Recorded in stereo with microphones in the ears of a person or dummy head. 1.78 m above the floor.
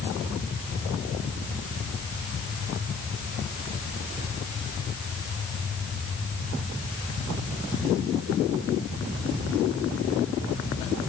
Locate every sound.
Only background noise.